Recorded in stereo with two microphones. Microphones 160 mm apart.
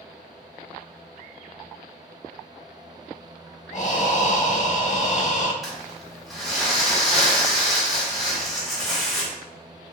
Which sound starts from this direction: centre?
Crumpling, at 5.6 s.